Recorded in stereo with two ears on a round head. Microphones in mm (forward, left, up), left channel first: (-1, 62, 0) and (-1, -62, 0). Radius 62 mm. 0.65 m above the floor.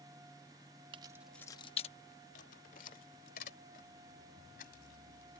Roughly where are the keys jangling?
Right.